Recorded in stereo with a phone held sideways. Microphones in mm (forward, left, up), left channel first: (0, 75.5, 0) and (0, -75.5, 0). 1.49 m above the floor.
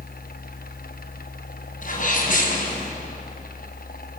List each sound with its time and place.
0.0 s a fan: 80° left, 0.9 m
1.8 s a sneeze: 60° left (ahead or behind), 7 m